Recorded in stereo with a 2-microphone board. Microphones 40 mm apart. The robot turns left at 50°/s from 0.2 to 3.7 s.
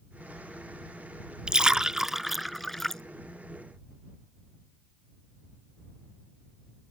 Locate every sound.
1.5 s a splash: 25° right (ahead or behind); by 3.0 s 10° left (ahead or behind)